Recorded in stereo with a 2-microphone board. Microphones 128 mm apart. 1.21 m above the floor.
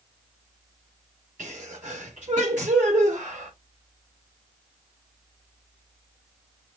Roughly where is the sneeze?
Right.